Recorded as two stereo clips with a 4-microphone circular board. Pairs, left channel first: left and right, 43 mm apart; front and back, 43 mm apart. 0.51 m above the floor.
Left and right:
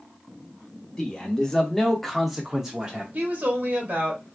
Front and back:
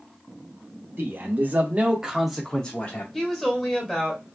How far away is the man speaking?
About 1.1 m.